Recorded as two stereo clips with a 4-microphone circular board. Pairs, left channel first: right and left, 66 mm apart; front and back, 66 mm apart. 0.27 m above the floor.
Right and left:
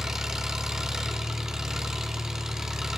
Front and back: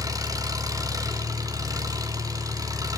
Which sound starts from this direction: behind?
An engine running, at 0.0 s.